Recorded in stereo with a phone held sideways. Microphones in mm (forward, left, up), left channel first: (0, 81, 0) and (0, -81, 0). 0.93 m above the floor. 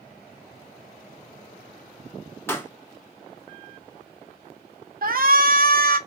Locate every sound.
2.5 s a pop: 15° left (ahead or behind), 0.8 m
5.0 s a shout: 65° right (ahead or behind), 0.6 m